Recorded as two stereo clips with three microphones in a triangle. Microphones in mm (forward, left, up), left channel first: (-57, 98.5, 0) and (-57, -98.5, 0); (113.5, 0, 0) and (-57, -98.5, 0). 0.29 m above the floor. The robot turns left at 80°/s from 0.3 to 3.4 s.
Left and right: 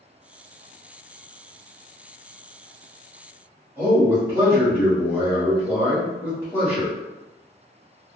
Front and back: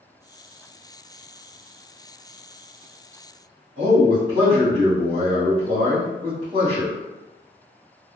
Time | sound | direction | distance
3.8 | a man speaking | 160° right | 1.5 m